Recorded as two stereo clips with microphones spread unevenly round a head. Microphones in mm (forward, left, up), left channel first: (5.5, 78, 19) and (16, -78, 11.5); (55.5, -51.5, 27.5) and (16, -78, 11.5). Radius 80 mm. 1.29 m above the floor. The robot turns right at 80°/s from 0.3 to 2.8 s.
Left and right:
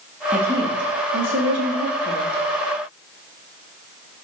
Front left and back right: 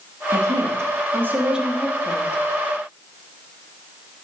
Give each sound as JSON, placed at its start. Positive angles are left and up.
{"t": 0.3, "sound": "a woman speaking", "azimuth_deg": -170, "distance_m": 2.5}